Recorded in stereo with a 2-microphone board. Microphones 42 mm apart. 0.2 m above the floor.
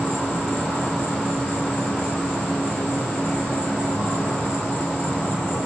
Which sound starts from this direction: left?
An insect, at 0.0 s.